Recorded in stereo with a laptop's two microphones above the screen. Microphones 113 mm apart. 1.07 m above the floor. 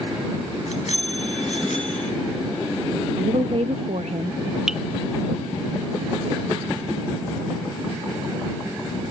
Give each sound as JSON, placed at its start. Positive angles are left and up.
{"t": 0.7, "sound": "a bicycle bell", "side_deg": 75}
{"t": 3.2, "sound": "a woman speaking", "side_deg": -75}
{"t": 4.7, "sound": "dripping", "side_deg": -5}